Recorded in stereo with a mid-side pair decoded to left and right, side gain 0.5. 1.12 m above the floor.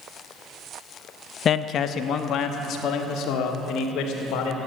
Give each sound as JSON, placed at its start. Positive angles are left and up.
{"t": 1.4, "sound": "a man speaking", "azimuth_deg": 50, "distance_m": 0.7}